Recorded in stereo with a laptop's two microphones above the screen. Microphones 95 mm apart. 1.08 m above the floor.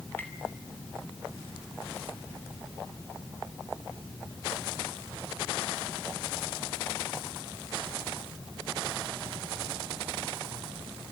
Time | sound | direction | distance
0.2 | tapping | 20° left (ahead or behind) | 2.5 m